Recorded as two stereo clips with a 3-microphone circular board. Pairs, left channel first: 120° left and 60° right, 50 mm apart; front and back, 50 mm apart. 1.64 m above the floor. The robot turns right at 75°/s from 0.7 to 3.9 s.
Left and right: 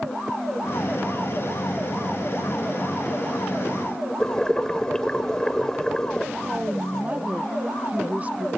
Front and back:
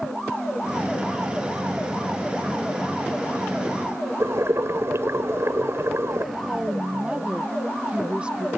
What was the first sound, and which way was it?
Boiling, 160° right.